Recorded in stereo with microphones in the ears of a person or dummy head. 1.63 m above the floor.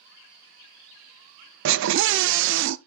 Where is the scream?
65° right (ahead or behind), 0.5 m.